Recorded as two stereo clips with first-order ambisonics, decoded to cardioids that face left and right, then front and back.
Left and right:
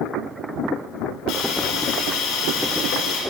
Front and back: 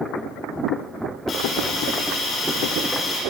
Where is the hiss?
60° left, 6 m.